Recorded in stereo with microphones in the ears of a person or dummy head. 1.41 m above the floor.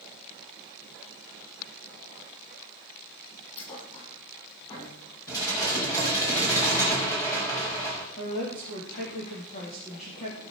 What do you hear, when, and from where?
3.6 s a thud: 30° left (ahead or behind), 7.5 m
5.3 s dishes clattering: 15° left (ahead or behind), 4.5 m
8.2 s a woman speaking: 35° left (ahead or behind), 3.5 m